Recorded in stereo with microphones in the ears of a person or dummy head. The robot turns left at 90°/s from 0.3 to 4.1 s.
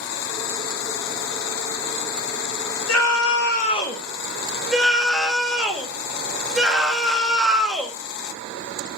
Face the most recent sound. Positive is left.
turn(degrees=0)